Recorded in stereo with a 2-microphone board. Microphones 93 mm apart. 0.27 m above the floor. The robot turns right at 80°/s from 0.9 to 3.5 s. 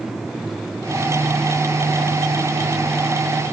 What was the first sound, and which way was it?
Only background noise.